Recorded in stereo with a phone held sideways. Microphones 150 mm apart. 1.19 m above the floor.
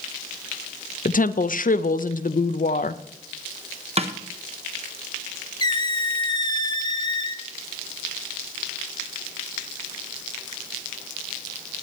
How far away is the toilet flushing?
I don't hear a toilet flushing.